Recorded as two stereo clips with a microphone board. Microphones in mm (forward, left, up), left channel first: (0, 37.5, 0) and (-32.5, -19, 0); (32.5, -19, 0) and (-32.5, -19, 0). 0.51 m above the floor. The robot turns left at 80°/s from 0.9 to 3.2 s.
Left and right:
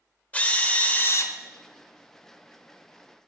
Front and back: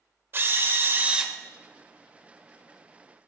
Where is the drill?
125° left, 0.5 m; by 1.3 s 90° left, 0.5 m.